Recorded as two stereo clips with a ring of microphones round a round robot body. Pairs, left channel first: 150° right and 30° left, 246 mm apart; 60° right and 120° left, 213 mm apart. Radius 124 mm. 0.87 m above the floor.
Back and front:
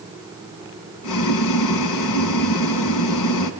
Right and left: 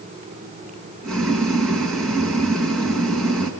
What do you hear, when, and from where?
1.0 s boiling: 150° right, 1.9 m